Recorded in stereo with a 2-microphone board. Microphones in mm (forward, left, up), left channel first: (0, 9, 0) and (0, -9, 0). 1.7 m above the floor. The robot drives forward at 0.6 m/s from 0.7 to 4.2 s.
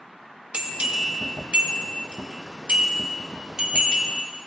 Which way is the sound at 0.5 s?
70° right (ahead or behind).